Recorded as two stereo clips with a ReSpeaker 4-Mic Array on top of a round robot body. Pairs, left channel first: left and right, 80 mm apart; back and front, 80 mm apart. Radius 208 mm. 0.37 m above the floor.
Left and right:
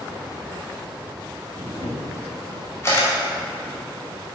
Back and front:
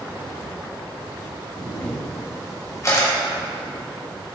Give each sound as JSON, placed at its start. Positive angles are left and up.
{"t": 1.6, "sound": "a camera shutter", "azimuth_deg": 140, "distance_m": 2.0}